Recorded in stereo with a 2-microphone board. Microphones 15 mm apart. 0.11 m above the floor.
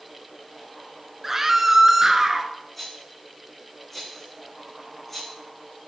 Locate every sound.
1.2 s a scream: 20° right (ahead or behind), 1.1 m; by 2.5 s 25° right (ahead or behind), 1.4 m
2.8 s a rattle: 10° left (ahead or behind), 7 m